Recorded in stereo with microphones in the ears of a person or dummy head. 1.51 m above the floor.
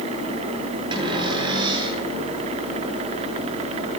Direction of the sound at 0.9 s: 35° right (ahead or behind).